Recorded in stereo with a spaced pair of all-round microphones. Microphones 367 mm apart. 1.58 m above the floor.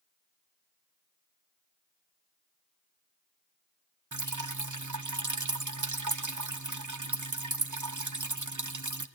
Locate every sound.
4.1 s dripping: 50° right (ahead or behind), 0.9 m